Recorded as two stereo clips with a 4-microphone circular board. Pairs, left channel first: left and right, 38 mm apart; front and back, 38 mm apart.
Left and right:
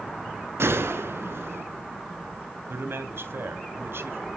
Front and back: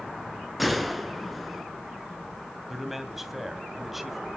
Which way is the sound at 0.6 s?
90° right.